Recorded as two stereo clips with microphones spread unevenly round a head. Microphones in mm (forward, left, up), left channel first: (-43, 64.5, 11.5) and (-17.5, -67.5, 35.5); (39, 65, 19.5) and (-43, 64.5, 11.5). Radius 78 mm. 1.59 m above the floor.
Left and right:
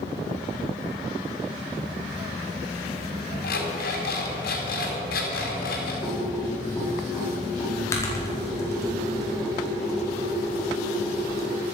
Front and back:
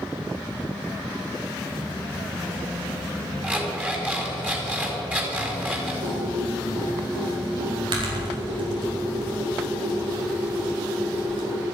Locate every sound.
3.4 s an alarm clock: 110° left, 4.5 m
6.0 s typing on a keyboard: 170° left, 4.5 m